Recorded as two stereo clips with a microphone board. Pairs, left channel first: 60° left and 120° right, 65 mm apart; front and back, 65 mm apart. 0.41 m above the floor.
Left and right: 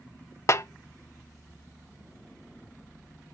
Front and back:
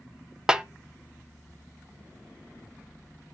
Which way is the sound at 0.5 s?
100° left.